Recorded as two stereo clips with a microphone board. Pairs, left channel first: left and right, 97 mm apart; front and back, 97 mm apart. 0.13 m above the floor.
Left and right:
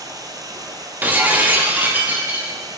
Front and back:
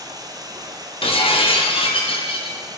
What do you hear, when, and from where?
0.0 s running water: 135° right, 1.2 m
1.0 s breaking glass: 15° right, 2 m